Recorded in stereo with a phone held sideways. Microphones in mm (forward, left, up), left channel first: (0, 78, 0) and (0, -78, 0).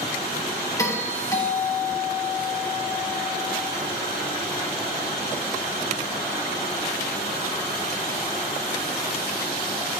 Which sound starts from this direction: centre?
A doorbell, at 0.8 s.